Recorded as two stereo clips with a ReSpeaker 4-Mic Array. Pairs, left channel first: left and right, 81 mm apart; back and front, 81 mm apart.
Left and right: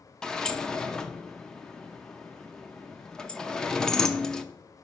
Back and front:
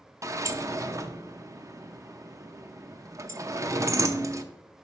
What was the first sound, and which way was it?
A sliding door, 15° left.